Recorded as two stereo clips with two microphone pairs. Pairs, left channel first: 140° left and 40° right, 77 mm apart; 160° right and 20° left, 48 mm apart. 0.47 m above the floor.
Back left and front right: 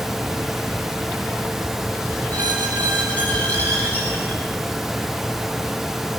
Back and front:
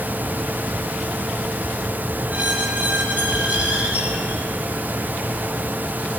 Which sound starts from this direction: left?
A squeak, at 2.3 s.